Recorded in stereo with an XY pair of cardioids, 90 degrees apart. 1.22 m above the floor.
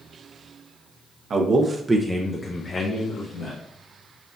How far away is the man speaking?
About 0.8 m.